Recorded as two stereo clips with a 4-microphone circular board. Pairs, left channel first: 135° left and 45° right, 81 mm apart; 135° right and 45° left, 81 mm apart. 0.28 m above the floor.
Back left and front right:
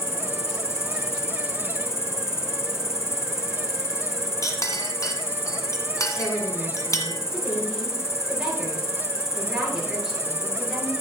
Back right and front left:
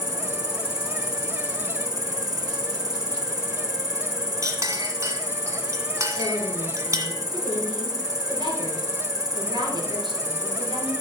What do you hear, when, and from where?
0.0 s an insect: 80° left, 1.1 m
4.4 s a clink: 90° left, 1.6 m
6.2 s a woman speaking: 35° left, 4 m